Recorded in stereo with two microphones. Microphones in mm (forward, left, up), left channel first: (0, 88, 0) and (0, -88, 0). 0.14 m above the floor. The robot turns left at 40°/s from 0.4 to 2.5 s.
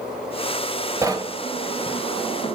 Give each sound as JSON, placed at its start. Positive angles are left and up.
{"t": 1.0, "sound": "knocking", "side_deg": -15, "distance_m": 1.6}